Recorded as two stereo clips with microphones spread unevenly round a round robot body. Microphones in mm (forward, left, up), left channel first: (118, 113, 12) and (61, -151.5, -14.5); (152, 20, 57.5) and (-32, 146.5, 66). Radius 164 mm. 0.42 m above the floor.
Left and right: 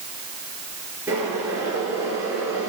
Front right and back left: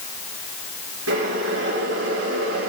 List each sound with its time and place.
1.1 s boiling: 175° left, 8 m